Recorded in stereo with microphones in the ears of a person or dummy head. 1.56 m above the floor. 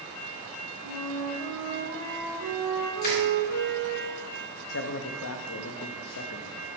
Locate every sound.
0.8 s a flute: 70° right (ahead or behind), 3 m
3.0 s crushing: 50° left (ahead or behind), 3.5 m
4.7 s a man speaking: 80° left, 0.7 m